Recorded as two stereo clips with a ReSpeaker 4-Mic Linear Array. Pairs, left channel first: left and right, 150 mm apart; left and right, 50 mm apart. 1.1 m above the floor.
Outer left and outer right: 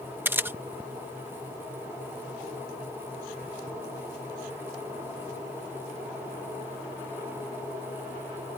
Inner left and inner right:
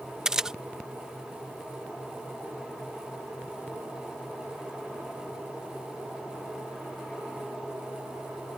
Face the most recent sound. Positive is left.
turn(degrees=-15)  # may be behind; listen again after turning